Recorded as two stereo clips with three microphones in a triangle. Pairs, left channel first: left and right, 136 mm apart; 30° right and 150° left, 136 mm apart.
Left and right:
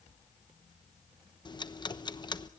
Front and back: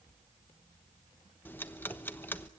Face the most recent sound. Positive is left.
turn(degrees=40)